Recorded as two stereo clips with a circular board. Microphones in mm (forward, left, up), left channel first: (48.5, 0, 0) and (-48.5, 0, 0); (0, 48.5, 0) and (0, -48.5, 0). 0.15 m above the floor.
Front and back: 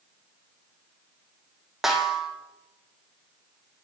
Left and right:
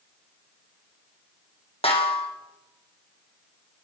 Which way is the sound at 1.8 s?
95° left.